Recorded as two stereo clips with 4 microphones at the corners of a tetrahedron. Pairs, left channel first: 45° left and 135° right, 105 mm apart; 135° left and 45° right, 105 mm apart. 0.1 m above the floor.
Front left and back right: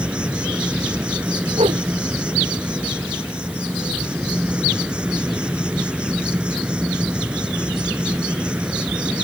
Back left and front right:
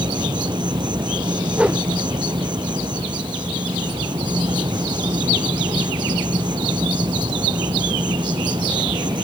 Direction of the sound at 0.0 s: 60° right.